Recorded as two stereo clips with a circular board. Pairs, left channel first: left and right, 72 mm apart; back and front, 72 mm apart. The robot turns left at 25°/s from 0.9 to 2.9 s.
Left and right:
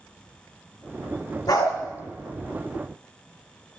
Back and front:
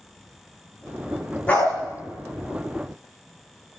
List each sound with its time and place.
1.5 s a dog barking: 110° left, 5 m; by 1.7 s 105° left, 5 m